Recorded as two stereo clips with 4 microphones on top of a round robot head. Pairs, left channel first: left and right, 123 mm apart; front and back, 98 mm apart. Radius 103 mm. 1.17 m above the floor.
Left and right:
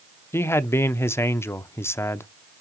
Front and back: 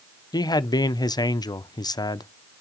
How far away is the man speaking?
About 0.9 m.